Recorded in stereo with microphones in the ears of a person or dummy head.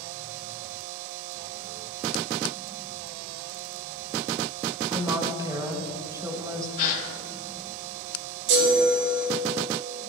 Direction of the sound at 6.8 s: 55° left (ahead or behind).